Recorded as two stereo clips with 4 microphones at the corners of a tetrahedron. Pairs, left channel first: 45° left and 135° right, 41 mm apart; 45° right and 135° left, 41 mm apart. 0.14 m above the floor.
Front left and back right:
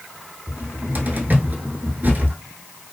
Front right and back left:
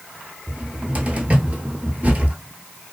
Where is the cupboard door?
175° right, 0.7 m.